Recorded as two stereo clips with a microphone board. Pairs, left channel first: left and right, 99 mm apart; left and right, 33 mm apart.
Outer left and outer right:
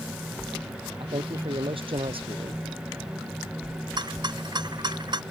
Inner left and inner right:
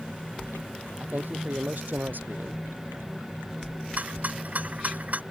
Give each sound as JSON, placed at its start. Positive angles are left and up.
{"t": 1.0, "sound": "a man speaking", "side_deg": -65}
{"t": 4.0, "sound": "a rattle", "side_deg": -50}